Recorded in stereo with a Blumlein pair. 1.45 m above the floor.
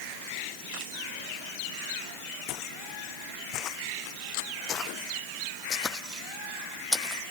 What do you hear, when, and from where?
2.5 s footsteps: 40° left; by 7.2 s straight ahead